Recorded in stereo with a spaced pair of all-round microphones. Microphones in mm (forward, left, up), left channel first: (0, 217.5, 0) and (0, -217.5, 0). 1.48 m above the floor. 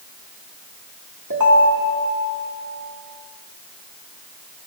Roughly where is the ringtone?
Right.